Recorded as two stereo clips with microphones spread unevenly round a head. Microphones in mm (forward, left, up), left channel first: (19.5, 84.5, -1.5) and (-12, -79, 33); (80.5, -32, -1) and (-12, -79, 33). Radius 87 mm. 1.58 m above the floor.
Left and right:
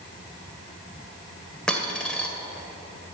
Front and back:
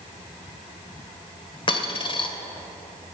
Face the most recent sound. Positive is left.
turn(degrees=-20)